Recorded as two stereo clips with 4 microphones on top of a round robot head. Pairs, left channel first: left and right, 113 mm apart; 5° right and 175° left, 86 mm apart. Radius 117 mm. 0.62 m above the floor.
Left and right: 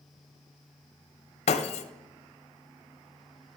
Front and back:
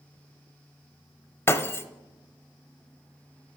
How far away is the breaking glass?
About 0.6 m.